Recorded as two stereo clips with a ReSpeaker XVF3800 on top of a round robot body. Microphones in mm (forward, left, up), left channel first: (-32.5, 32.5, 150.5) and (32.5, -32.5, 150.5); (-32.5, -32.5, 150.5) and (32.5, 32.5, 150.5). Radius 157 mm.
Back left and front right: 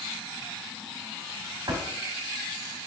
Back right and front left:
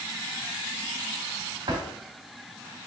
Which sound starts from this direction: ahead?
A drawer, at 1.7 s.